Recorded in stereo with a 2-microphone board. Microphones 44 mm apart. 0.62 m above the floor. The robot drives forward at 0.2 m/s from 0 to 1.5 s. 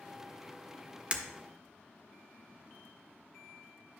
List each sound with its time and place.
1.1 s breaking glass: 30° right (ahead or behind), 1.0 m